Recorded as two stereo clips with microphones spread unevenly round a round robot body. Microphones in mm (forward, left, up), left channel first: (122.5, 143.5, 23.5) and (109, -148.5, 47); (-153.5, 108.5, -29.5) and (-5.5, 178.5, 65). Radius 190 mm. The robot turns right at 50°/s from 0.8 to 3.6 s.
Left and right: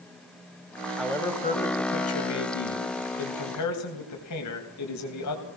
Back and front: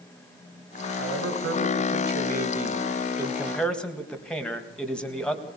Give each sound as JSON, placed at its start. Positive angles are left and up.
{"t": 1.0, "sound": "a man speaking", "azimuth_deg": -5, "distance_m": 4.5}